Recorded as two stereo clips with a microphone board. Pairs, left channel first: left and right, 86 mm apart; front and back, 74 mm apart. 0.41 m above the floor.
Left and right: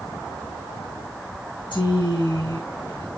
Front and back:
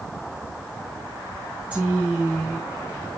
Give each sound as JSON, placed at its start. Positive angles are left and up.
{"t": 1.7, "sound": "a woman speaking", "azimuth_deg": 105, "distance_m": 4.0}